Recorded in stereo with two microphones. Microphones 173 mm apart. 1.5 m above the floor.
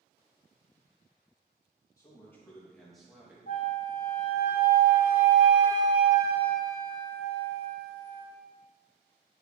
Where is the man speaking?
20° left (ahead or behind), 2 m; by 3.4 s 5° right (ahead or behind), 2 m.